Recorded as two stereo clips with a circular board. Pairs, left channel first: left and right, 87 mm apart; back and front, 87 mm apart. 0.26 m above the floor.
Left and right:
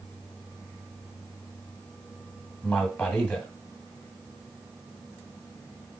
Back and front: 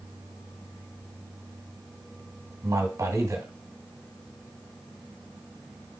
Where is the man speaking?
15° left, 2.0 m.